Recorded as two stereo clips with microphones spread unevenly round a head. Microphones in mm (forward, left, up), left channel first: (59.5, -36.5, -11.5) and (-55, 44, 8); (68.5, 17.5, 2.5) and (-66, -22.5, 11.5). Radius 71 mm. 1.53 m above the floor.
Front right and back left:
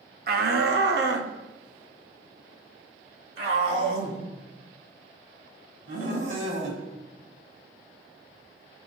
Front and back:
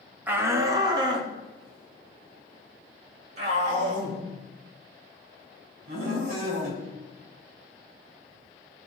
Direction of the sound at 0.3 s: 120° left.